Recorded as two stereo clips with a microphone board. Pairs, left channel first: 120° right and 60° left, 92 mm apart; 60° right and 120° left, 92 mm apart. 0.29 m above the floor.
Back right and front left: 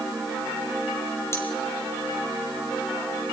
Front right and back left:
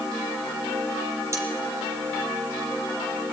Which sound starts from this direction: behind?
Cutlery clinking, at 1.3 s.